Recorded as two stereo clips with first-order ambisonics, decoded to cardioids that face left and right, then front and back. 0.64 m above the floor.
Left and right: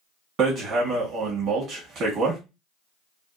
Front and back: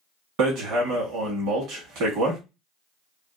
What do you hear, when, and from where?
0.4 s hammering: 140° right, 1.2 m